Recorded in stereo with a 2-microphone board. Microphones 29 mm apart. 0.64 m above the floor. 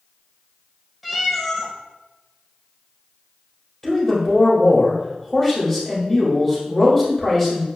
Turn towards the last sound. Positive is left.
turn(degrees=10)  # may be behind; listen again after turning